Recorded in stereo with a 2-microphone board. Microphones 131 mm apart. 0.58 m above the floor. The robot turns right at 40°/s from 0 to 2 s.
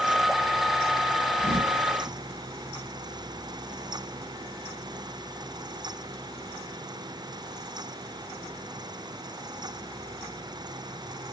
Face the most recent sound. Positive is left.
turn(degrees=-40)  # may be behind; listen again after turning